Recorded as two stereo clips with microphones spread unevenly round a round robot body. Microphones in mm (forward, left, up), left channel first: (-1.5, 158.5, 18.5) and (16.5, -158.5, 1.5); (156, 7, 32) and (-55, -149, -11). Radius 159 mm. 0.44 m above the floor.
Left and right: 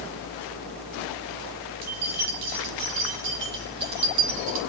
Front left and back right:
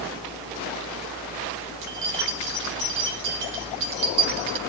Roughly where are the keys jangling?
Behind right.